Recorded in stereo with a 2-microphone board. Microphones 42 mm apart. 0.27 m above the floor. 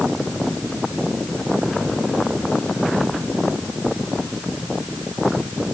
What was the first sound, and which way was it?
Only background noise.